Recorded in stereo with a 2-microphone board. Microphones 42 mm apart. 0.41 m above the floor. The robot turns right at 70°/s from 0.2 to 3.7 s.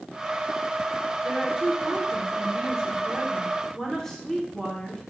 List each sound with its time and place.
1.2 s a woman speaking: 10° right (ahead or behind), 0.9 m; by 5.0 s 10° left (ahead or behind), 0.9 m